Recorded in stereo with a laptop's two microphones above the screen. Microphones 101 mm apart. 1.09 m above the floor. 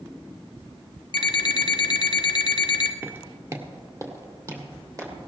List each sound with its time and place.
1.1 s an alarm clock: 45° left (ahead or behind), 0.9 m
3.0 s footsteps: 20° right (ahead or behind), 1.1 m; by 5.1 s 35° right (ahead or behind), 3.5 m